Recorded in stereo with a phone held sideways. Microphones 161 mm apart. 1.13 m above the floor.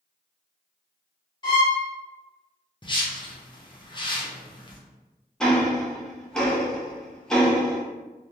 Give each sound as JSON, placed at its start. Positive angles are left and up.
{"t": 1.4, "sound": "a violin", "side_deg": 30, "distance_m": 1.3}
{"t": 2.8, "sound": "a whoosh", "side_deg": 30, "distance_m": 0.5}
{"t": 5.4, "sound": "ticking", "side_deg": 5, "distance_m": 0.6}